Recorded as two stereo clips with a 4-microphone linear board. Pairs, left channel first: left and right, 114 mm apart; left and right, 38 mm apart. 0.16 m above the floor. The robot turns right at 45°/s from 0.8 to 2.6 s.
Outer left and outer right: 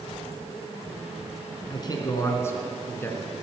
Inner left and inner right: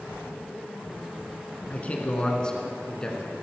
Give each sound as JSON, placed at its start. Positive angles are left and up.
{"t": 1.7, "sound": "a man speaking", "azimuth_deg": 110, "distance_m": 2.0}